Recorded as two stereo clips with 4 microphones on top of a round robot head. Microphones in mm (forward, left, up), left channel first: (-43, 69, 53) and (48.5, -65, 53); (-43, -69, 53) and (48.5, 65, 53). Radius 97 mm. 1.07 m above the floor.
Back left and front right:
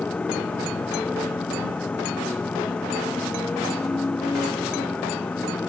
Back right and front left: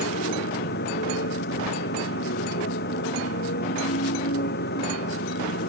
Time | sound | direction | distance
0.0 | a motorcycle | 150° right | ?